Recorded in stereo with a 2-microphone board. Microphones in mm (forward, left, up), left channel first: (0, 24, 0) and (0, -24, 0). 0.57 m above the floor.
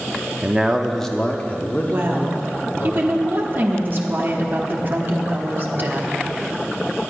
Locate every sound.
0.4 s a man speaking: 25° right (ahead or behind), 0.7 m; by 2.9 s 55° left (ahead or behind), 1.5 m
1.9 s a woman speaking: 45° right (ahead or behind), 1.1 m